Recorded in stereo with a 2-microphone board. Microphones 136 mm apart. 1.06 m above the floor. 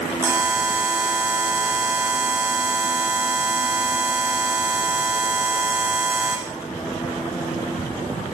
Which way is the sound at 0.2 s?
15° right (ahead or behind).